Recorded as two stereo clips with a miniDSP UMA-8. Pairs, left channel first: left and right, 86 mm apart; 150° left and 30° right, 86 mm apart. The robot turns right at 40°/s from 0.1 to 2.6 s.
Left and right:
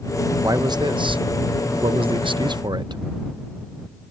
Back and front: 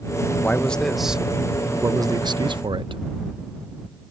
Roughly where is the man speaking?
Behind right.